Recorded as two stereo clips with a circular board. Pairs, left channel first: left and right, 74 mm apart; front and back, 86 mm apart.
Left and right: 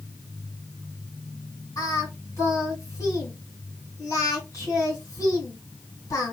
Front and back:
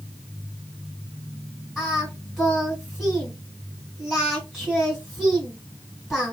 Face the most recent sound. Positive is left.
turn(degrees=95)